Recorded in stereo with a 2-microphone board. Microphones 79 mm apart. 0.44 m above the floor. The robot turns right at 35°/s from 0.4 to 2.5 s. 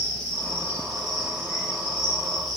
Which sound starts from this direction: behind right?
An insect, at 0.0 s.